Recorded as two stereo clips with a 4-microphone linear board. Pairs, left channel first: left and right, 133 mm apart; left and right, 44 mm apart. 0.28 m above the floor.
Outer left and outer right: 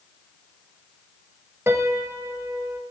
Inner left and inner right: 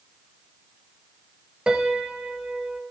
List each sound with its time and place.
1.7 s a piano: 20° right (ahead or behind), 0.7 m